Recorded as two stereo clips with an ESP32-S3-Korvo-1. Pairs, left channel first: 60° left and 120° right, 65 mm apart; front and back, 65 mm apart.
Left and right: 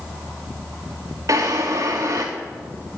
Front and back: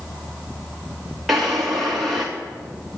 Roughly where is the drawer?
Right.